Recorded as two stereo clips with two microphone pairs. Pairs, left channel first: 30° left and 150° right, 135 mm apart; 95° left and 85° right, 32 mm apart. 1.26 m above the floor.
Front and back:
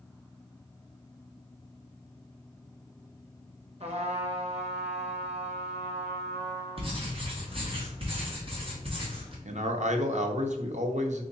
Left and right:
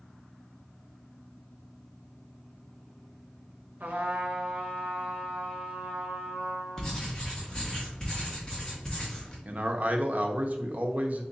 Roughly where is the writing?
Behind.